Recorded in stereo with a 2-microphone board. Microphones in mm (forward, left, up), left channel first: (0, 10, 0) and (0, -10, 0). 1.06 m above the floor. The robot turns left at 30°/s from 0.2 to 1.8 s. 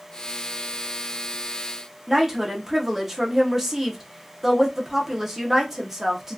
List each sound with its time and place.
2.1 s a woman speaking: 20° right (ahead or behind), 0.7 m